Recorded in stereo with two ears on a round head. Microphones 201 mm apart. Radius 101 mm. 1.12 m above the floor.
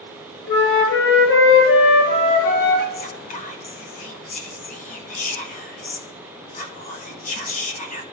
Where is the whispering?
30° left (ahead or behind), 0.9 m.